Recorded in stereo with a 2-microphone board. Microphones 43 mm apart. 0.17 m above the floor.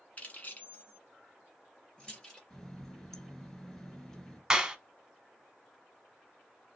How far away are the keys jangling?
About 1.3 m.